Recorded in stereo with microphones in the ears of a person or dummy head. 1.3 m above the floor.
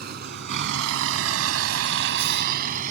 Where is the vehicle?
50° right (ahead or behind); by 2.9 s 45° right (ahead or behind).